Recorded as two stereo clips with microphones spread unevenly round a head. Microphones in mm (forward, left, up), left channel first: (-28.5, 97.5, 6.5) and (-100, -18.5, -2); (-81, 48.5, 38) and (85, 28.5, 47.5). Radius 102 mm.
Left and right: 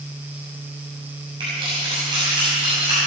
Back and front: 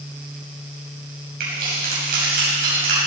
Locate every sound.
1.4 s keys jangling: 50° right, 6 m